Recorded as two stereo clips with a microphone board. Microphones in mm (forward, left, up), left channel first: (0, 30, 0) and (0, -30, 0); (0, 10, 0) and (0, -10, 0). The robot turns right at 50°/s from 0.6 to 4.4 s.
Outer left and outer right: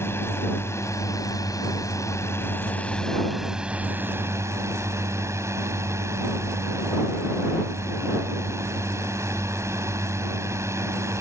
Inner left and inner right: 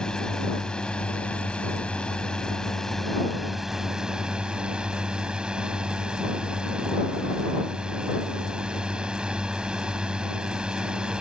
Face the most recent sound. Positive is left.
turn(degrees=-125)